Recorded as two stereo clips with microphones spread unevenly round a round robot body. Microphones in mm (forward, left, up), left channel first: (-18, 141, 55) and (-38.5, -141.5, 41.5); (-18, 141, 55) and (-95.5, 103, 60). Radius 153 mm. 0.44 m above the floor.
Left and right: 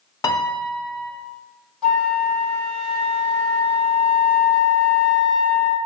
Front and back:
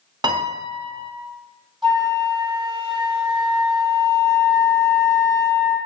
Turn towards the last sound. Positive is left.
turn(degrees=175)